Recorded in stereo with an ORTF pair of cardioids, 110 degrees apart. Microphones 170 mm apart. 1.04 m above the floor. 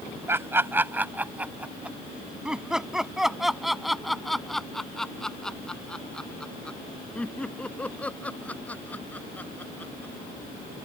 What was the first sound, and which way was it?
Laughter, 15° right.